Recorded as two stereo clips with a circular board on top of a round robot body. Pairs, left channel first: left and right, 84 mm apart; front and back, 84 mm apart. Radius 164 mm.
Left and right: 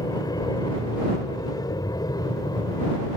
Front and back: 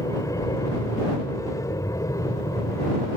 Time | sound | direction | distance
0.0 | an aircraft | 50° left | ?